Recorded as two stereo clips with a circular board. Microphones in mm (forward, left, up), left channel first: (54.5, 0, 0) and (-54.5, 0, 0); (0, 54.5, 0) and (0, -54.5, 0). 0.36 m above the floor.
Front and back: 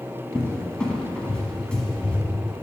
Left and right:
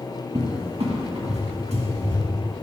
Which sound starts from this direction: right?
A cupboard door, at 0.3 s.